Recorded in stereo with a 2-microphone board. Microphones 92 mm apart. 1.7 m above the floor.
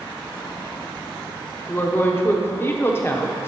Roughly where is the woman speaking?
Left.